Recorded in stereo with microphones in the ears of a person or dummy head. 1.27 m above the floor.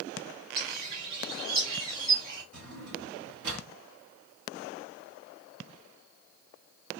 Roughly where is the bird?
Right.